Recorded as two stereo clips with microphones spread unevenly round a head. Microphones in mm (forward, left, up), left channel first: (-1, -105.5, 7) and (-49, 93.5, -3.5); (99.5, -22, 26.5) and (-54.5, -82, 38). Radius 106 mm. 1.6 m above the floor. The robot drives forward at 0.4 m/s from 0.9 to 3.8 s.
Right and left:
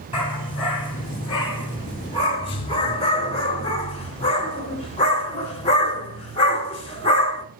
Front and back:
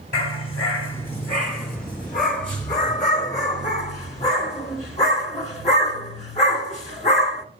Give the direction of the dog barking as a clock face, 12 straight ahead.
12 o'clock.